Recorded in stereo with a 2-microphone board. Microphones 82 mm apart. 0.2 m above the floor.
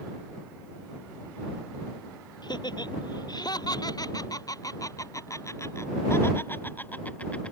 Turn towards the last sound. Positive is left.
turn(degrees=10)  # may be behind; listen again after turning